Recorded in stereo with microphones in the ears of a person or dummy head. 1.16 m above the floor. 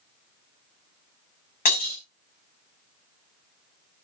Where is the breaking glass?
45° left (ahead or behind), 6 m.